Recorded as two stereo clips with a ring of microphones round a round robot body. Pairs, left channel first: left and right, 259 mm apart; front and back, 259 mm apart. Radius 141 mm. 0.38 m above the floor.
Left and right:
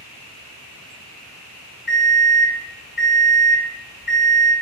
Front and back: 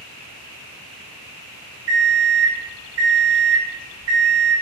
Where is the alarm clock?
140° left, 1.6 m.